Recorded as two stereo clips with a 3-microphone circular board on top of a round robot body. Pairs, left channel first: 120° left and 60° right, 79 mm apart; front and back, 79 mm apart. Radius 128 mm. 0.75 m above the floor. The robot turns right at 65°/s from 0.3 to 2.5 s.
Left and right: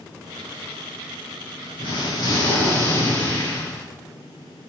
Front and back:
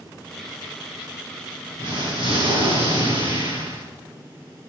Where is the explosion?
135° left, 5 m; by 3.9 s straight behind, 5 m.